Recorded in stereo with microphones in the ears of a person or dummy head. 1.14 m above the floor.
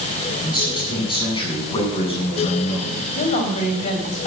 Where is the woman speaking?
35° left (ahead or behind), 5 m.